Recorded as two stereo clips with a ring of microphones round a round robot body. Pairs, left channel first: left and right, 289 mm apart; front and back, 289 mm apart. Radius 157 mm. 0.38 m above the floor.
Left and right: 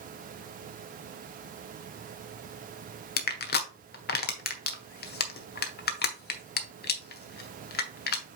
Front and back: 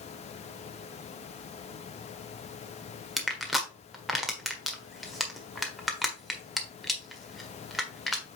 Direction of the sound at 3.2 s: 90° left.